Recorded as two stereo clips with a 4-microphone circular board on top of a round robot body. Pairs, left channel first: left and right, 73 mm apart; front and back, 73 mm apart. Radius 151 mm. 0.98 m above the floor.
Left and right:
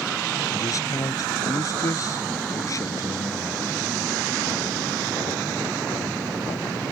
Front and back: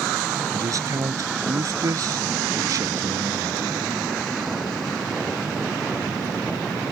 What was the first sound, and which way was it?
A man speaking, 135° left.